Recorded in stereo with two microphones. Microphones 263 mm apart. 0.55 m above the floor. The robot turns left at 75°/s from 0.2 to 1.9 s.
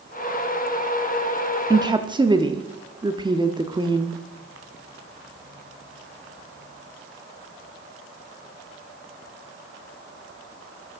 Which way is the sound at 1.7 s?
15° right (ahead or behind).